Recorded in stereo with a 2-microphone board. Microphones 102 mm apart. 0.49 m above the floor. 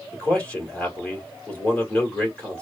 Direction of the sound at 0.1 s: 10° left (ahead or behind).